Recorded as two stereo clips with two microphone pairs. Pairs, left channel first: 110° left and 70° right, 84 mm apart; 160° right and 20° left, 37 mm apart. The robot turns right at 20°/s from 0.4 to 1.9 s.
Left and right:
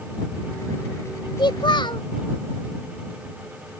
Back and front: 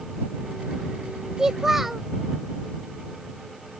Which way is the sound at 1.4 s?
95° left.